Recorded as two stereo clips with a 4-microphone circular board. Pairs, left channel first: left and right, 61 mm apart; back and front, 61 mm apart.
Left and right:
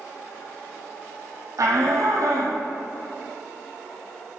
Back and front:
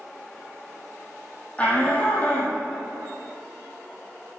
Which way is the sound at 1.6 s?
115° right.